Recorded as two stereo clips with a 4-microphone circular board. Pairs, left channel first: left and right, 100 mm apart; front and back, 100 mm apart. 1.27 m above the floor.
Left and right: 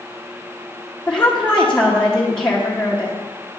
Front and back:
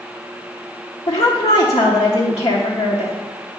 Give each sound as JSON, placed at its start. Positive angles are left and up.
{"t": 1.1, "sound": "a woman speaking", "azimuth_deg": 10, "distance_m": 0.9}